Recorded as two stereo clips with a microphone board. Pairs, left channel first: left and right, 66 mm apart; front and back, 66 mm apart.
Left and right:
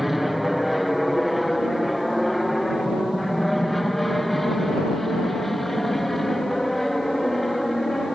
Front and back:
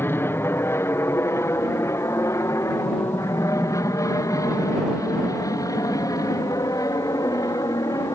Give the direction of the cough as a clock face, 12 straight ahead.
I don't hear a cough.